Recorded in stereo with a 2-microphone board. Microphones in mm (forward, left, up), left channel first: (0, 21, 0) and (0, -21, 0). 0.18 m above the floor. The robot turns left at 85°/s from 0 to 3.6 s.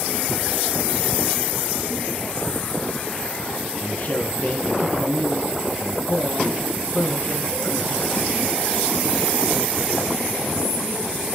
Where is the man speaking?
40° left (ahead or behind), 1.8 m.